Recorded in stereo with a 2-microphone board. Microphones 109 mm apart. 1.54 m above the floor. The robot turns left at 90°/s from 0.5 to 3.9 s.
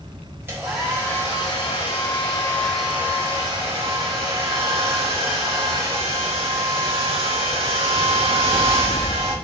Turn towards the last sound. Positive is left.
turn(degrees=-100)